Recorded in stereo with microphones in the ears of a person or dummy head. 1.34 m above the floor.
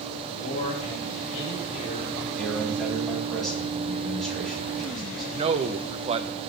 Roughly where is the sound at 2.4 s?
Centre.